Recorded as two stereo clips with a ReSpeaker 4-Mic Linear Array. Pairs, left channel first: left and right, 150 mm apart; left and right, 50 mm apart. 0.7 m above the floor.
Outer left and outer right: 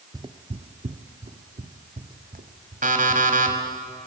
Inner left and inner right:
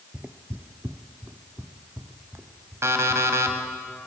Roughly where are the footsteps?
Right.